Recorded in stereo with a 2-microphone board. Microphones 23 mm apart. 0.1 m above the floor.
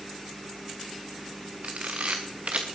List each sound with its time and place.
1.6 s a camera shutter: 85° right, 2.5 m